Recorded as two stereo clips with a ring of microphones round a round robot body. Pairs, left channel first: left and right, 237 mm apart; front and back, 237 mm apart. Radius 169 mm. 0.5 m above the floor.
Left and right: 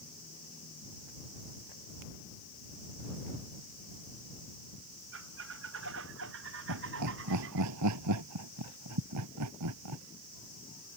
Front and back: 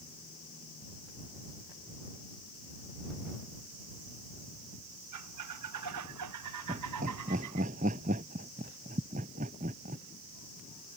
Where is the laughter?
110° right.